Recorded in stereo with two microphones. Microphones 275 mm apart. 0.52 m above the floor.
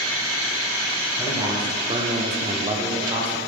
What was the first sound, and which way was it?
A man speaking, 10° right (ahead or behind).